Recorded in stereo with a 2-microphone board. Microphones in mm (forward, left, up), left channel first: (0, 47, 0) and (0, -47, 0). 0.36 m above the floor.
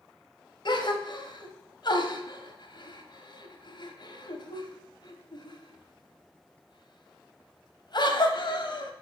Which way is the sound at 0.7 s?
55° left (ahead or behind).